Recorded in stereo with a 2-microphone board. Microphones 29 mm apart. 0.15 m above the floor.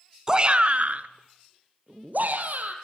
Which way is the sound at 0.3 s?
20° right (ahead or behind).